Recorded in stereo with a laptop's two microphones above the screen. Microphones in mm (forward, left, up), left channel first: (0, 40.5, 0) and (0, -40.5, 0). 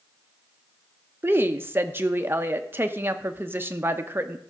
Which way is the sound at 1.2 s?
30° right (ahead or behind).